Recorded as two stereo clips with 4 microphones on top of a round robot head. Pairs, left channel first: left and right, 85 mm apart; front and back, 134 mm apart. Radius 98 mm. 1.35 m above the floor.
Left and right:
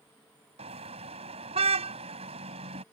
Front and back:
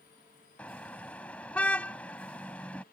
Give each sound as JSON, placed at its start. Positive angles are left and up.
{"t": 0.6, "sound": "a car horn", "azimuth_deg": -85}